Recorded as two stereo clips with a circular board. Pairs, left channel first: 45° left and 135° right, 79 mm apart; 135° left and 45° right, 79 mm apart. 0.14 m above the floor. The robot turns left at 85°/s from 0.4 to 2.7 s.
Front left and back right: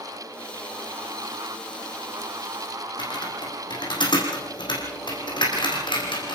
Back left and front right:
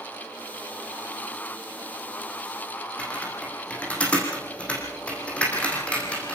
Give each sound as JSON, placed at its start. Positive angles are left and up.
{"t": 3.0, "sound": "typing on a keyboard", "azimuth_deg": 60, "distance_m": 5.5}